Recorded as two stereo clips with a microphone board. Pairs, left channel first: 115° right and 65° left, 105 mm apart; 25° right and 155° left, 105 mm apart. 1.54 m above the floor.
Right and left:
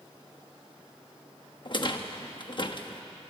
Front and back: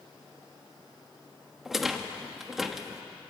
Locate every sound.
1.6 s a rattle: 115° right, 1.1 m